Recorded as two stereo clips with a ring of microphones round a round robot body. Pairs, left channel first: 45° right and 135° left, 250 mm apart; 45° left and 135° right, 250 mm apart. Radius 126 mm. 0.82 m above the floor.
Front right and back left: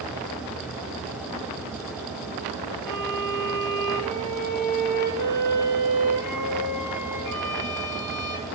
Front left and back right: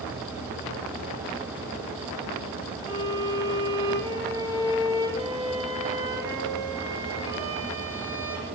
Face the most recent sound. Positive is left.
turn(degrees=-60)